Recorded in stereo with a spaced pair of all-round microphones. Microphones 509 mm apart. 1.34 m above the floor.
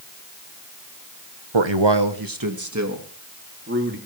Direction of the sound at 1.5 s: 65° right (ahead or behind).